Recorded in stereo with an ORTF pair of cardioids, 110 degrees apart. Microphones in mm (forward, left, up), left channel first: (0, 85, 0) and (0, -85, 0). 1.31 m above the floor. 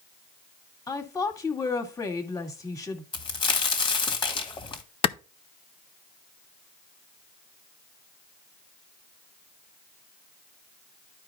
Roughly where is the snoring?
I don't hear snoring.